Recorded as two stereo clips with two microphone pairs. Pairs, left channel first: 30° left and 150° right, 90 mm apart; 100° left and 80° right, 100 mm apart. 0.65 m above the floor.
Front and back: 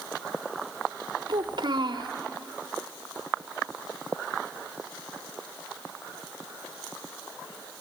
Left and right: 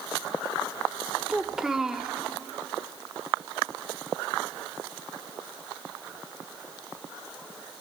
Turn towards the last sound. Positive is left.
turn(degrees=-165)